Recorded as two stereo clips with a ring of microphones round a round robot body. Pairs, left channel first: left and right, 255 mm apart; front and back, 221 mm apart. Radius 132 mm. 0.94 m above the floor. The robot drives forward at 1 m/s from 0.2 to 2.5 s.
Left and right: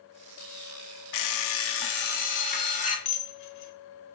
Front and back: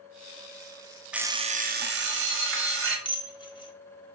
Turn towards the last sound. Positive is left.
turn(degrees=70)